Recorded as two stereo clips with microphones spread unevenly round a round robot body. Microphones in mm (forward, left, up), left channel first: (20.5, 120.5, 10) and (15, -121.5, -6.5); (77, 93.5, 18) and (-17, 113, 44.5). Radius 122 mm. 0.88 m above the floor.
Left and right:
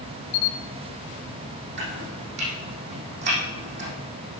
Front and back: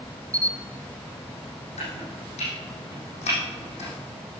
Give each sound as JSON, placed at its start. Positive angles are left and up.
{"t": 0.3, "sound": "a camera shutter", "azimuth_deg": 105, "distance_m": 0.9}
{"t": 1.8, "sound": "chopping", "azimuth_deg": -45, "distance_m": 6.5}